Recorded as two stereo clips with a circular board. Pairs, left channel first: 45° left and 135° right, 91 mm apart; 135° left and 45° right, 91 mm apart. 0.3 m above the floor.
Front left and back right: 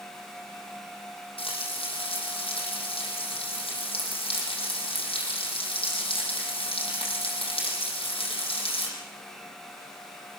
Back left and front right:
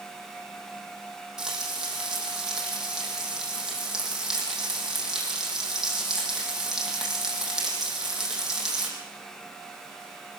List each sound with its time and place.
1.4 s frying: 40° left, 6.5 m